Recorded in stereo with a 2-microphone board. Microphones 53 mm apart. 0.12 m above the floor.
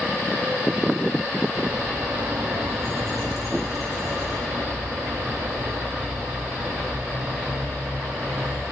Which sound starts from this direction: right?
A bird, at 1.6 s.